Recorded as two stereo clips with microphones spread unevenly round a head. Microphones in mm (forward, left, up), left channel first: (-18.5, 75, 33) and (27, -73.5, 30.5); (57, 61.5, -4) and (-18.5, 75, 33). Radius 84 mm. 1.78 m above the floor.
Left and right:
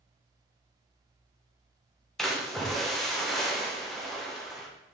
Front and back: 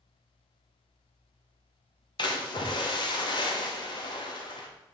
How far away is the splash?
About 1.6 m.